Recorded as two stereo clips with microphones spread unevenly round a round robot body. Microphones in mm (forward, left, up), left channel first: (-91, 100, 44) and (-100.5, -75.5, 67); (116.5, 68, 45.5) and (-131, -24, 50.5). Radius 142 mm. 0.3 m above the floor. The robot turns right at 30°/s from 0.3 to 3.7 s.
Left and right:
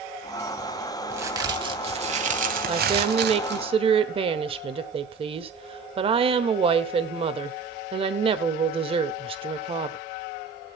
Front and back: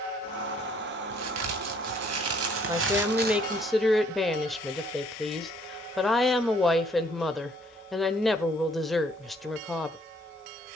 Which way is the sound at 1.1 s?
170° right.